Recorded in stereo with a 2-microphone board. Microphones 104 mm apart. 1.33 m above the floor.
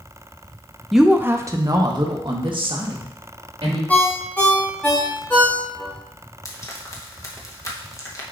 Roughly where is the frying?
Left.